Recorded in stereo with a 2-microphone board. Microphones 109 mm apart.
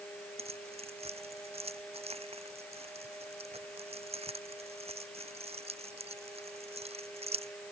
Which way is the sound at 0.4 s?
60° right (ahead or behind).